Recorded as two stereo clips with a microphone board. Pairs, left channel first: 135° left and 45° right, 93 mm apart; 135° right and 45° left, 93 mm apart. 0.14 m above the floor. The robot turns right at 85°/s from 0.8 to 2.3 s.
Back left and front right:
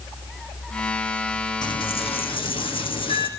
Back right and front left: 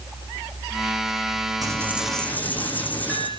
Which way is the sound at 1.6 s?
95° left.